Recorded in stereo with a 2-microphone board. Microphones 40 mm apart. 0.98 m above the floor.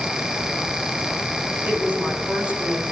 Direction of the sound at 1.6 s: 35° right (ahead or behind).